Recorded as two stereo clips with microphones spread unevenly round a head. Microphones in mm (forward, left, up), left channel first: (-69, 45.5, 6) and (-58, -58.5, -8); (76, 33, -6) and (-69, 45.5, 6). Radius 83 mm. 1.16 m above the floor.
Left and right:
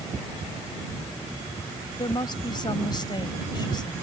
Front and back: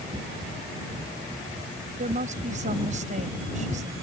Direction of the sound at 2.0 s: 140° left.